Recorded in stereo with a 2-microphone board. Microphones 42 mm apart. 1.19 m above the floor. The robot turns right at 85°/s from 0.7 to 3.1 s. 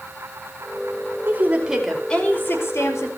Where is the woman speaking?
55° right, 5 m; by 3.1 s 100° left, 5 m.